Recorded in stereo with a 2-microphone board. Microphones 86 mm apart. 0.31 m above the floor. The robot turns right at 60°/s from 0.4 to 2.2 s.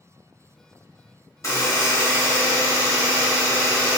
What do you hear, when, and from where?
1.4 s a buzzer: 85° left, 1.0 m; by 4.0 s 130° left, 1.0 m